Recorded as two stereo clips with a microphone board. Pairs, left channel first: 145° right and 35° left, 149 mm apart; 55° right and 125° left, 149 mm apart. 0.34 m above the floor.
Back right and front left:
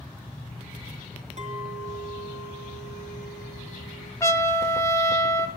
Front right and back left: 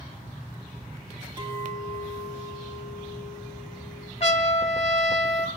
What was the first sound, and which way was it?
A clink, 70° left.